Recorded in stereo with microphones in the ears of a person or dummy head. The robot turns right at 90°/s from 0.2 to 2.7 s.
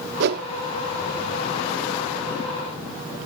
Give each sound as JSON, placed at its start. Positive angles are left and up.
{"t": 0.2, "sound": "a whoosh", "side_deg": -65}